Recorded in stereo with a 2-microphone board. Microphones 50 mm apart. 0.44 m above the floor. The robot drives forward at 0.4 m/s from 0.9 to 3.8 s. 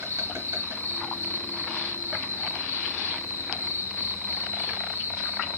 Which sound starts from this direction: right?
An insect, at 0.0 s.